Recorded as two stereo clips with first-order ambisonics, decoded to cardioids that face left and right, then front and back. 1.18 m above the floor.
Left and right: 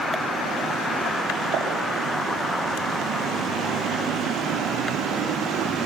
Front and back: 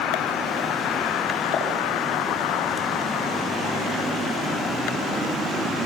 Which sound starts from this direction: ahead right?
A pop, at 1.5 s.